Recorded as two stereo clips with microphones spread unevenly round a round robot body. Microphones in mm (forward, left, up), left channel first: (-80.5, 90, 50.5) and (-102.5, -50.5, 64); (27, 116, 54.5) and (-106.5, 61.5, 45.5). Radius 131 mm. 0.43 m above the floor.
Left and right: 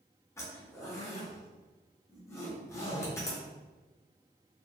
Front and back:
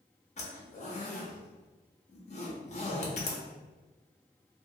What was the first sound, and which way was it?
A zipper, 25° left.